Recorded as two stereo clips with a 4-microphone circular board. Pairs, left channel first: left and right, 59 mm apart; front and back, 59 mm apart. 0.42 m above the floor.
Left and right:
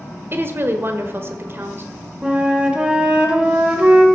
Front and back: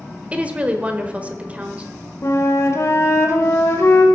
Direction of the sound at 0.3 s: 120° right.